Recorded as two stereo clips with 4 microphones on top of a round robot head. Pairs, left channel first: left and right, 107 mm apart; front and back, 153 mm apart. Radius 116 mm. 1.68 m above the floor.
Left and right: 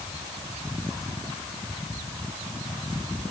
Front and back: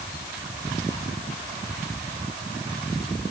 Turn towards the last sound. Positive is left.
No sound to turn to.